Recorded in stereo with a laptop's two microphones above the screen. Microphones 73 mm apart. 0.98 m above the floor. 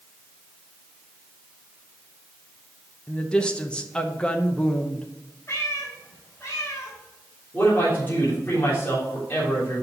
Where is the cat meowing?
35° left (ahead or behind), 2.5 m.